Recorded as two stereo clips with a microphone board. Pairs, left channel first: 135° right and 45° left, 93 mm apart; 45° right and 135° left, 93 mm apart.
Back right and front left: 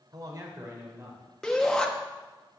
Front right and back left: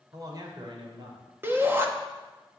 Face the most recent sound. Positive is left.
turn(degrees=150)